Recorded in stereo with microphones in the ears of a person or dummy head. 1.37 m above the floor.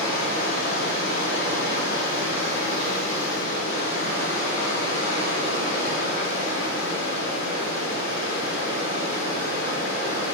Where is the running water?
65° left (ahead or behind), 1.2 m.